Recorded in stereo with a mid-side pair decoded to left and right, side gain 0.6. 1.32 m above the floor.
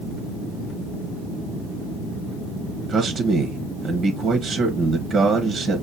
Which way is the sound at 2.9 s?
20° right.